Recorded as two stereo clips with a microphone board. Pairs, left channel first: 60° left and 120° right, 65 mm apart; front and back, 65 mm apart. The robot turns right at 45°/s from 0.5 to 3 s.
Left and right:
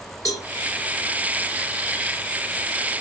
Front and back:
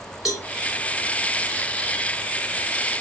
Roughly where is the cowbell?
Left.